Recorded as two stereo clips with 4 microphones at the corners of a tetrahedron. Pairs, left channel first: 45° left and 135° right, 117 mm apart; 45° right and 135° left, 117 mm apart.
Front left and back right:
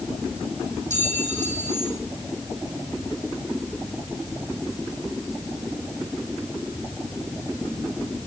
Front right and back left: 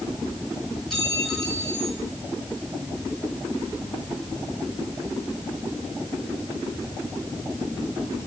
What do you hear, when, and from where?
0.9 s a clink: 135° right, 4 m